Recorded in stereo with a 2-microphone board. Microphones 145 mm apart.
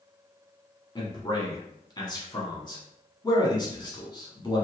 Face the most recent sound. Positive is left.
turn(degrees=30)  # may be behind; listen again after turning